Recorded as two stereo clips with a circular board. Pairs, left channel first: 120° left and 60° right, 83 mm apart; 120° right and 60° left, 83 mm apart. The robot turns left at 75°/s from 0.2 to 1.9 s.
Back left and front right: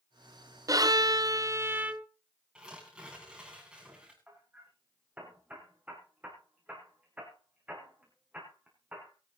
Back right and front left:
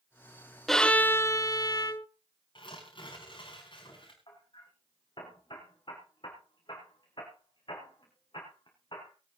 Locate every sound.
0.7 s a violin: 35° right, 0.7 m; by 2.1 s 125° right, 0.7 m
2.5 s tearing paper: 140° right, 7 m
4.3 s hammering: 130° right, 5.5 m